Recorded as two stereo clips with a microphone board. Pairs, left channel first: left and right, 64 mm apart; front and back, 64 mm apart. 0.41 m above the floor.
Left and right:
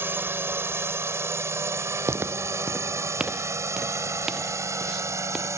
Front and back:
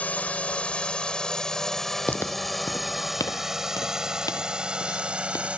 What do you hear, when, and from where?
0.0 s a drone: 55° right; by 5.6 s 115° right
2.1 s footsteps: 55° right; by 5.5 s 5° right